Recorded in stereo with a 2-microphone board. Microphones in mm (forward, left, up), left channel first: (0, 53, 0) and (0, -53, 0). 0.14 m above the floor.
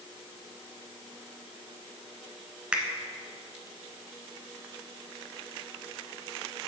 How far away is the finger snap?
About 1.1 m.